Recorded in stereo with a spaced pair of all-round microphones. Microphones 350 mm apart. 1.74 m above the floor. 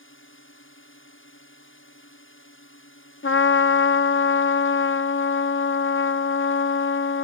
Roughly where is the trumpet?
Left.